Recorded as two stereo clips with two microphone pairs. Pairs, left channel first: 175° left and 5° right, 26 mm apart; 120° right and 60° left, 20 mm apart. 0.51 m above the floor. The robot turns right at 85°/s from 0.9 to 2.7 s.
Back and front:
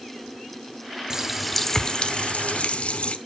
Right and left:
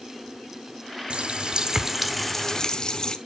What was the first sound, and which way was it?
A running tap, 65° left.